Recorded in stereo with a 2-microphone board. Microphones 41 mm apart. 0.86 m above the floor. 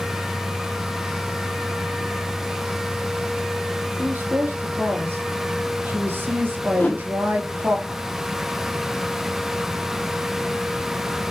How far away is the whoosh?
About 1.1 m.